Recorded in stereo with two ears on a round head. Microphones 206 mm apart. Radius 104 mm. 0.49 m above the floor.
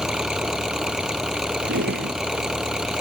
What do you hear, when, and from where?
0.0 s an engine running: 5° right (ahead or behind)
1.6 s a drawer: 50° right (ahead or behind)